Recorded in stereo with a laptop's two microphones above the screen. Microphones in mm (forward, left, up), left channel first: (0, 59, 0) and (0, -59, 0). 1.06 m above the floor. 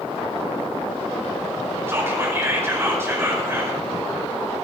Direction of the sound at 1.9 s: 20° right (ahead or behind).